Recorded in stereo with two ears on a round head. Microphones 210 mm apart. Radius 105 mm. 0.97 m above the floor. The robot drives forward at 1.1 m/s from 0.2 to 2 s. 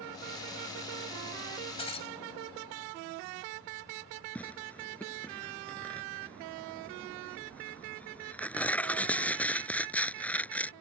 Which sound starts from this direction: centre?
Tearing paper, at 4.3 s.